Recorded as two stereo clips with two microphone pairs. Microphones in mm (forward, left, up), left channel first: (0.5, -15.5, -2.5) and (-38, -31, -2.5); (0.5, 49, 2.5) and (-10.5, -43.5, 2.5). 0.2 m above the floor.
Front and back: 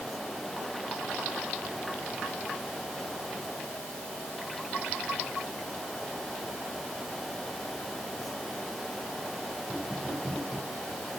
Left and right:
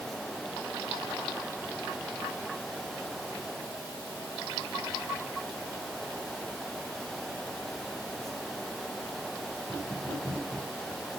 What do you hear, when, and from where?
Only background noise.